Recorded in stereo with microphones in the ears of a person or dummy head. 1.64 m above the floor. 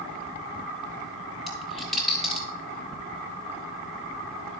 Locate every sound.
1.5 s a dropped coin: 5° right (ahead or behind), 1.3 m